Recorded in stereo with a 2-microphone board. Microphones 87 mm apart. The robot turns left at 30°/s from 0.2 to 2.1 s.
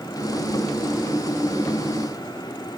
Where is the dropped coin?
No dropped coin in this recording.